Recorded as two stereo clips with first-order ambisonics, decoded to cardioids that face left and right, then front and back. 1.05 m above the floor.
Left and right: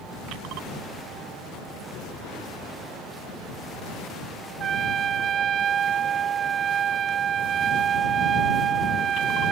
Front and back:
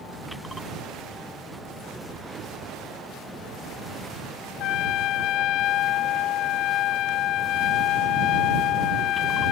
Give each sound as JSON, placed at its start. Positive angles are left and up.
{"t": 4.6, "sound": "a trumpet", "azimuth_deg": -35}